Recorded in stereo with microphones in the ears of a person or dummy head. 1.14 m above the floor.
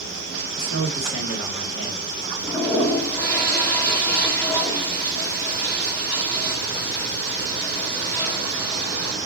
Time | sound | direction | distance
0.6 | a man speaking | 75° left (ahead or behind) | 1.7 m
2.4 | a toilet flushing | 10° left (ahead or behind) | 1.3 m